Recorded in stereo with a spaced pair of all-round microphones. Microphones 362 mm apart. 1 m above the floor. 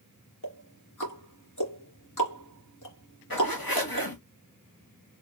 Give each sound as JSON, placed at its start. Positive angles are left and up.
{"t": 0.4, "sound": "ticking", "side_deg": 55, "distance_m": 2.5}
{"t": 3.3, "sound": "a zipper", "side_deg": 70, "distance_m": 1.7}